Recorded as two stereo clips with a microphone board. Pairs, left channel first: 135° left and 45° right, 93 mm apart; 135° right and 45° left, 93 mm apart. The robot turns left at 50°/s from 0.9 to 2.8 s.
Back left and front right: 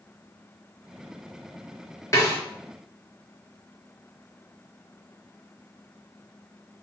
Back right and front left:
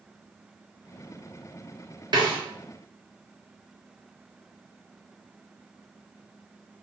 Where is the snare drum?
80° left, 0.7 m; by 2.4 s 70° left, 0.7 m.